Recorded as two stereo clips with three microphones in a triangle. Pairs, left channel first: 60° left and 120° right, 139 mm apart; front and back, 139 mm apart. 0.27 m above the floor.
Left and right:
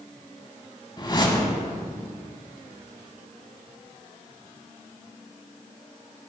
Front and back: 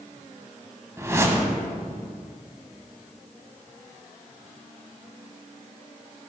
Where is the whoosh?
110° left, 0.7 m.